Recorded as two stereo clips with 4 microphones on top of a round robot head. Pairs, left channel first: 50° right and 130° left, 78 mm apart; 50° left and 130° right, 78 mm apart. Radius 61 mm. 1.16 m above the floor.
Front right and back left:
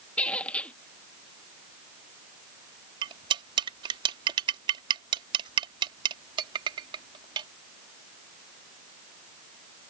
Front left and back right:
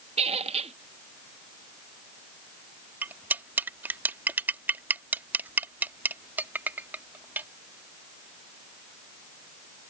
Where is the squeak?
125° right.